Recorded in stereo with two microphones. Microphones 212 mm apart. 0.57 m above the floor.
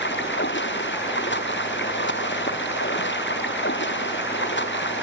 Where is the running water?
60° left (ahead or behind).